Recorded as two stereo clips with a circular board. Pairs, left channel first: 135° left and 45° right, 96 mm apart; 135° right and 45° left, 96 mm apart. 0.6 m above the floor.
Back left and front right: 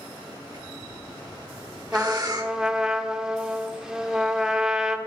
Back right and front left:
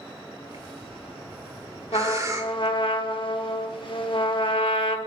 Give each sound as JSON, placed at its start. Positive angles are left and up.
{"t": 0.5, "sound": "breathing", "azimuth_deg": -5, "distance_m": 1.2}
{"t": 1.9, "sound": "a trumpet", "azimuth_deg": -125, "distance_m": 0.9}